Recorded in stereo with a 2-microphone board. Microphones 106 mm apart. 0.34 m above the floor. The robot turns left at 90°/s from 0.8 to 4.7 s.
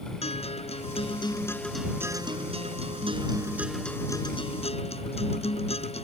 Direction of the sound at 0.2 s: 85° left.